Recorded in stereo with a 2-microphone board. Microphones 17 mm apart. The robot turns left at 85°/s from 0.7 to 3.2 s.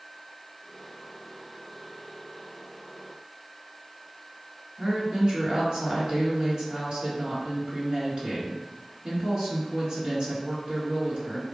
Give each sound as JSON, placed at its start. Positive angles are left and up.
{"t": 4.8, "sound": "a woman speaking", "side_deg": -45, "distance_m": 1.6}